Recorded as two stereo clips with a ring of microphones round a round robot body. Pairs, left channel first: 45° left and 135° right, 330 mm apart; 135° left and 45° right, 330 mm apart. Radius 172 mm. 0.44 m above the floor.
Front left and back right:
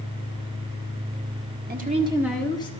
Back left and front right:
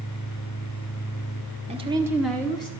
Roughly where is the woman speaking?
Right.